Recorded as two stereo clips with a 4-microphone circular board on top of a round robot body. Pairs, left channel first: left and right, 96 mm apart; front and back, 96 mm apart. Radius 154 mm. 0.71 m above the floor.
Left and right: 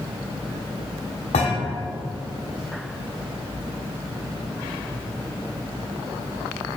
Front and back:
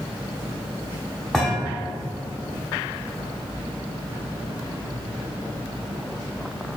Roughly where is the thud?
Left.